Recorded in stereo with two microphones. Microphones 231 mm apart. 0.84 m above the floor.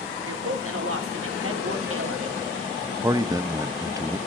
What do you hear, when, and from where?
0.3 s a woman speaking: 70° right (ahead or behind), 2.5 m
3.0 s a man speaking: 15° right (ahead or behind), 0.9 m